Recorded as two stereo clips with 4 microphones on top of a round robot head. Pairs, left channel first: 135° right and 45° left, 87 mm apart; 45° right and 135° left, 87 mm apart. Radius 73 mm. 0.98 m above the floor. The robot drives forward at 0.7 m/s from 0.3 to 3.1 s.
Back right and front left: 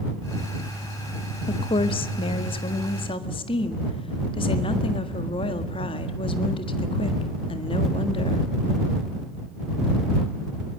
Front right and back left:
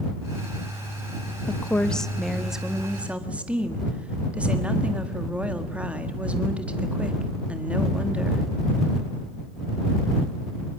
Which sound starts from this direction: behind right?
A woman speaking, at 1.5 s.